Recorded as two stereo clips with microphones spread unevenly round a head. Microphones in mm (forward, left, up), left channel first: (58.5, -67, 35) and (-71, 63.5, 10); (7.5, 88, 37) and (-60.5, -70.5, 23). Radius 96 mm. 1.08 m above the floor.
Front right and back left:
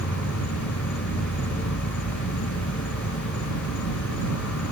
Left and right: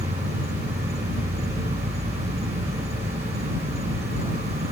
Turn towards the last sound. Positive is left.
turn(degrees=-55)